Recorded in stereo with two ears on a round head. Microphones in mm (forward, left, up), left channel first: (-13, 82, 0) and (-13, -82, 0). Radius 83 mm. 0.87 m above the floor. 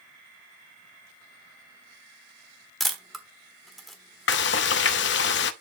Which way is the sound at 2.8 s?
Centre (ahead or behind).